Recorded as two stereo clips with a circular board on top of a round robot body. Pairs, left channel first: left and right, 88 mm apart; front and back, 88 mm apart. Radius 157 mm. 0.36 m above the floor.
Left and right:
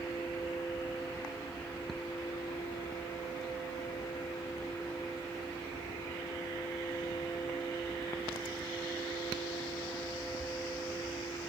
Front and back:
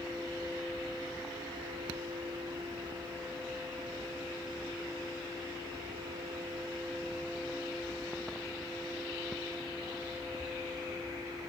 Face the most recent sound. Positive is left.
No sound to turn to.